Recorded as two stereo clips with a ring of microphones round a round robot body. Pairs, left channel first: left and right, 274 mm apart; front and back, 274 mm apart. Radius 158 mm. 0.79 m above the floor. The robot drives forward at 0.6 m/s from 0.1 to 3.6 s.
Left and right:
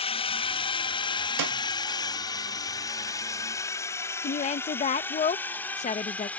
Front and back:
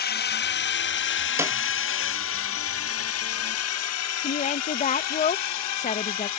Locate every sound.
0.0 s a drone: 30° left; by 6.4 s 5° left
1.4 s a snare drum: 100° right; by 1.6 s 105° right
4.2 s a woman speaking: 45° left